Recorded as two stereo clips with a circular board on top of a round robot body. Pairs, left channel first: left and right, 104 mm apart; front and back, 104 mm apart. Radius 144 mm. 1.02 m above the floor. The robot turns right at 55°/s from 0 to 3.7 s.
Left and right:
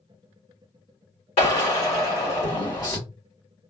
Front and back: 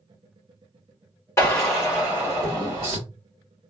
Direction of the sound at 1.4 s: 65° left.